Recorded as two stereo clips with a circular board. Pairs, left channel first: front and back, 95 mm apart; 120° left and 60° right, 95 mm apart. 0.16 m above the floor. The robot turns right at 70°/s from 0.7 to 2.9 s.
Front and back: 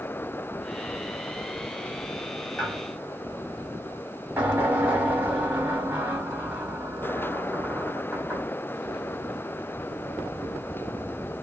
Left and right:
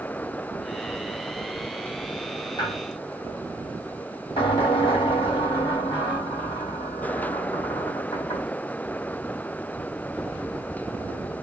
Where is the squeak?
85° left, 2 m; by 8.5 s 105° left, 2 m.